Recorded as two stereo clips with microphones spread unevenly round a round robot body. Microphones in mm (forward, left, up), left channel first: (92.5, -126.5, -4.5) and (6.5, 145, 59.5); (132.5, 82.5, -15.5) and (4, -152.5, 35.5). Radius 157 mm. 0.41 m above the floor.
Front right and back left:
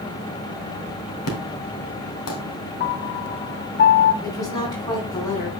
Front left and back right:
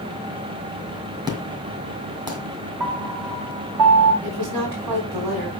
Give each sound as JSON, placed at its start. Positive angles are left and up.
{"t": 1.3, "sound": "an explosion", "azimuth_deg": -40, "distance_m": 2.5}
{"t": 2.8, "sound": "a piano", "azimuth_deg": -125, "distance_m": 1.5}
{"t": 4.2, "sound": "a woman speaking", "azimuth_deg": -150, "distance_m": 4.5}